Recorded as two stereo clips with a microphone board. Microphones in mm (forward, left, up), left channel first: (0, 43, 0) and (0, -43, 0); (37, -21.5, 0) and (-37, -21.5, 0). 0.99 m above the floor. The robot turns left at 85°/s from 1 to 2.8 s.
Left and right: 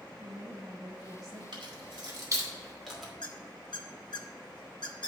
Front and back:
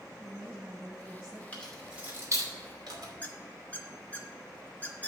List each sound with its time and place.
0.2 s a woman speaking: 105° right, 1.5 m; by 1.4 s 145° right, 1.5 m
1.5 s keys jangling: 70° right, 2.5 m; by 3.1 s straight behind, 2.5 m
3.2 s a squeak: 65° left, 1.0 m